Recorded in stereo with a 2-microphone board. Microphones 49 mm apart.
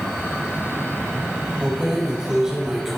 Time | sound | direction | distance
1.6 | keys jangling | 20° right (ahead or behind) | 7.5 m